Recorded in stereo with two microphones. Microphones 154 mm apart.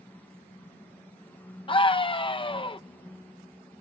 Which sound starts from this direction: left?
A scream, at 1.7 s.